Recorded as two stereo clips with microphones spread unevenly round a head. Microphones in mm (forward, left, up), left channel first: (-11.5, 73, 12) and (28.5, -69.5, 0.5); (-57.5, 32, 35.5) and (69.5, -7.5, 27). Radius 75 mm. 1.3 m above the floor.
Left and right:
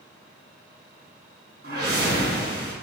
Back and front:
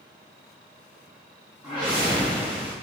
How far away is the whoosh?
About 4 m.